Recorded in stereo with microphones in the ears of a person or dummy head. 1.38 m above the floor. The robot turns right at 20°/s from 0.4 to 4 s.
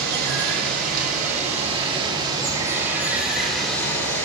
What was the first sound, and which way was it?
Running water, 60° right.